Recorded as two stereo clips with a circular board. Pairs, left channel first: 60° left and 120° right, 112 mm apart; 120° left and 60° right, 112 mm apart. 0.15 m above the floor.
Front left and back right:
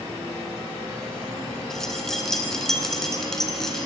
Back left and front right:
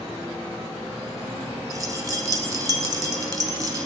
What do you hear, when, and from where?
1.7 s keys jangling: 25° right, 1.1 m